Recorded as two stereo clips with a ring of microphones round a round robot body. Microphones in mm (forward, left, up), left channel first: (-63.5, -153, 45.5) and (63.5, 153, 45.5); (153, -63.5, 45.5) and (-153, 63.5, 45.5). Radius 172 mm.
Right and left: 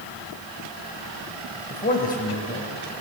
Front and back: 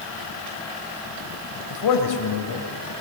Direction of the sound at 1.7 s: 50° right.